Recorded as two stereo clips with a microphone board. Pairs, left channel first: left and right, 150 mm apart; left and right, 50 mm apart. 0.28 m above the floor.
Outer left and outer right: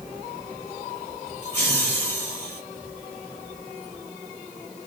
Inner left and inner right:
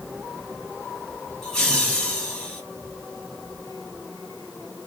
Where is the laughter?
10° left (ahead or behind), 1.6 m.